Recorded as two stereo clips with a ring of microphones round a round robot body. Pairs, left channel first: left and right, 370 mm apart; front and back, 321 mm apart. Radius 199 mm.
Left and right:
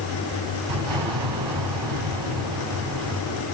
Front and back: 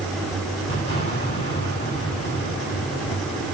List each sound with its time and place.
0.7 s an explosion: 65° right, 6 m